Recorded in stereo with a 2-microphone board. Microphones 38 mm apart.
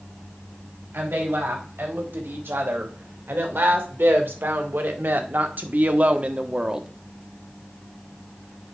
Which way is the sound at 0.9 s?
80° right.